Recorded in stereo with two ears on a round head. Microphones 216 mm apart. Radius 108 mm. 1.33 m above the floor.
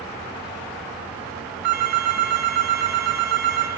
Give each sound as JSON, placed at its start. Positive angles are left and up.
{"t": 1.6, "sound": "a phone ringing", "side_deg": -75, "distance_m": 1.4}